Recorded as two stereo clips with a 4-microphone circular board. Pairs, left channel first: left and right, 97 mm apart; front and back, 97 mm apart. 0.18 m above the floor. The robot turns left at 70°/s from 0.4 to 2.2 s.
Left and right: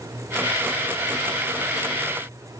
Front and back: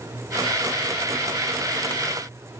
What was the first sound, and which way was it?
Only background noise.